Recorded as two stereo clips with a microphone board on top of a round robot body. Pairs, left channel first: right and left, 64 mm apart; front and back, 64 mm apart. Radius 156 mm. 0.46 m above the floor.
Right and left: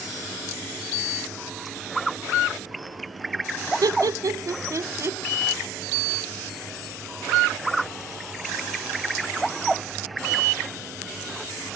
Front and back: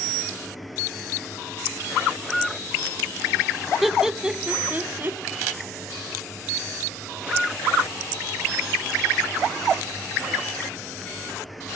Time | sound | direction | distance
3.8 | laughter | 90° left | 1.6 m